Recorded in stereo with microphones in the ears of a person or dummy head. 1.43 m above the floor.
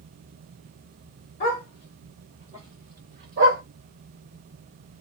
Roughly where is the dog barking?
Left.